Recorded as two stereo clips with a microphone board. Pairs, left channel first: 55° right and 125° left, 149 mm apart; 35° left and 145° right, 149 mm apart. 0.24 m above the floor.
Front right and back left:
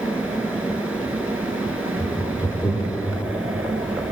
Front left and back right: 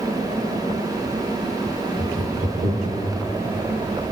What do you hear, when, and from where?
2.0 s laughter: 115° right, 6.5 m; by 3.0 s 125° right, 7.5 m